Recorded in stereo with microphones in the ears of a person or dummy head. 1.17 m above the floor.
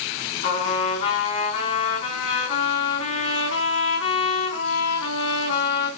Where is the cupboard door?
I don't hear a cupboard door.